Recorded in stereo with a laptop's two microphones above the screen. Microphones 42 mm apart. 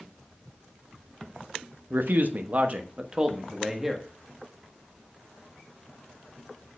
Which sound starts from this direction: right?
A man speaking, at 1.9 s.